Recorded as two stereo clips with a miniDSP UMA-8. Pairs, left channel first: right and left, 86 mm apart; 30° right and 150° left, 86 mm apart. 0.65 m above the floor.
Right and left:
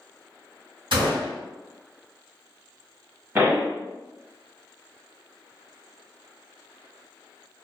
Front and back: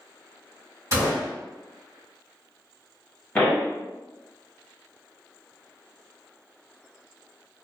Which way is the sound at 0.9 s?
105° left.